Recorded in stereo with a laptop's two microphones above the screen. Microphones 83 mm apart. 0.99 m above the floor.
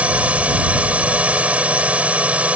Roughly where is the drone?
Centre.